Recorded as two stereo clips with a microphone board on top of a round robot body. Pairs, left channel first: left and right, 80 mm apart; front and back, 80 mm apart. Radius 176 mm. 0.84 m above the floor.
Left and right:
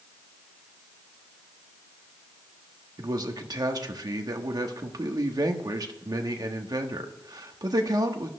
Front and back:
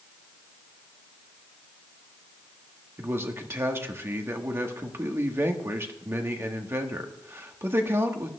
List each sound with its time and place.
3.0 s a man speaking: 120° right, 1.5 m